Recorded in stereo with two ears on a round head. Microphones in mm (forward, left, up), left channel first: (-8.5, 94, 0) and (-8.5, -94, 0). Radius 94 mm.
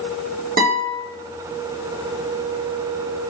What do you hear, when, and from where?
0.6 s a guitar: 45° right (ahead or behind), 3 m